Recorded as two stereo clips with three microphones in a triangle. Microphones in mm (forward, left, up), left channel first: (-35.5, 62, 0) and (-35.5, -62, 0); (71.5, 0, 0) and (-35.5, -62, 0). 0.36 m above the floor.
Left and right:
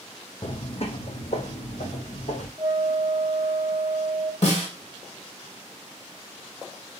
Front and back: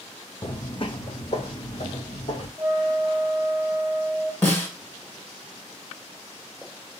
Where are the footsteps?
70° left, 0.5 m; by 2.5 s 65° left, 1.6 m.